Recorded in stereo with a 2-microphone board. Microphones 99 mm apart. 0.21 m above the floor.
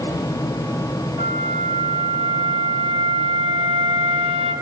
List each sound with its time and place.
1.2 s a flute: 80° right, 4 m